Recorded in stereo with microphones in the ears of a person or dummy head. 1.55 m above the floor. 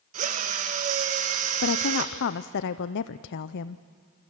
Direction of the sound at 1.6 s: 65° left (ahead or behind).